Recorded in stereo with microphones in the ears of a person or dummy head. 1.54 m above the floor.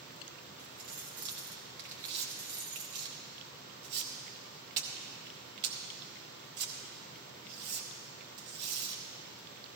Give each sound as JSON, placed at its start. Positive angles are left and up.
{"t": 0.6, "sound": "keys jangling", "side_deg": -40, "distance_m": 1.4}
{"t": 2.1, "sound": "tearing paper", "side_deg": -55, "distance_m": 1.3}